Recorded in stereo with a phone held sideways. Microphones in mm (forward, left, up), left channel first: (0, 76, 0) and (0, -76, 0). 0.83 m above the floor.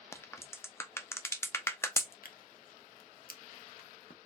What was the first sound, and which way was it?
A crack, 15° left (ahead or behind).